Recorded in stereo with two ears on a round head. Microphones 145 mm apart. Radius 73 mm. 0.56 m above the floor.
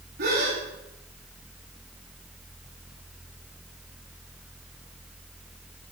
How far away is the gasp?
About 9 m.